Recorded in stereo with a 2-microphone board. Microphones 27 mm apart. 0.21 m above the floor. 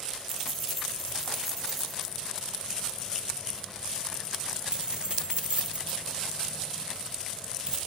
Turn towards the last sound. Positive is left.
turn(degrees=-35)  # may be behind; listen again after turning